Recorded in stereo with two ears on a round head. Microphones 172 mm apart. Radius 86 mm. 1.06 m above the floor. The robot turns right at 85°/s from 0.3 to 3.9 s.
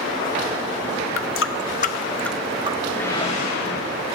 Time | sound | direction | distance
1.2 | a running tap | 75° left (ahead or behind) | 1.0 m
2.9 | a whoosh | 5° left | 3.5 m